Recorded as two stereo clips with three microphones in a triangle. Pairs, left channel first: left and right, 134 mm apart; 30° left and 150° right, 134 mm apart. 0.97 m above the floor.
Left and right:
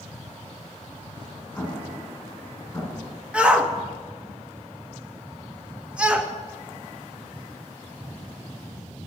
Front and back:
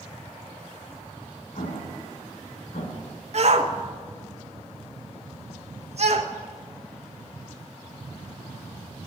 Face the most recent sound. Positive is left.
turn(degrees=-170)